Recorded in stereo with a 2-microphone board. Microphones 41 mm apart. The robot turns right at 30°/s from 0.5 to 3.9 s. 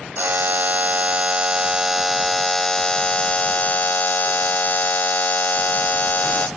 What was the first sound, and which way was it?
A buzzer, 55° right.